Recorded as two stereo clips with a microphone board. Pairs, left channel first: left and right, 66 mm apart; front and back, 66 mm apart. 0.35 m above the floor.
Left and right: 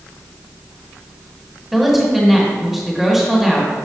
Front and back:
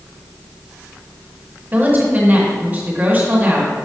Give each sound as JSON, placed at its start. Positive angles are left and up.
{"t": 1.7, "sound": "a woman speaking", "azimuth_deg": -175, "distance_m": 1.6}